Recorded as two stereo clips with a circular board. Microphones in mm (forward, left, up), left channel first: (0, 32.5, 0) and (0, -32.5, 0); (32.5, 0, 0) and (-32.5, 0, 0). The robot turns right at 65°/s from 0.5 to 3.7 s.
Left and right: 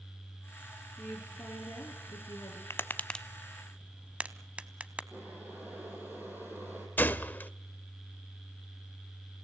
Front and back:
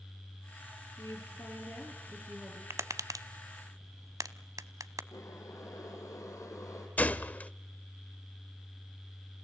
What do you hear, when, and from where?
1.0 s a woman speaking: 25° left, 7 m; by 2.6 s 130° left, 7 m
2.7 s tapping: 135° left, 0.8 m; by 5.0 s 160° right, 0.8 m
5.1 s boiling: 30° right, 5.5 m
7.0 s a gunshot: 50° left, 0.7 m